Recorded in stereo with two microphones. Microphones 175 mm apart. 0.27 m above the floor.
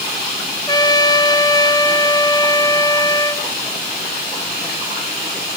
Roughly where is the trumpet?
Left.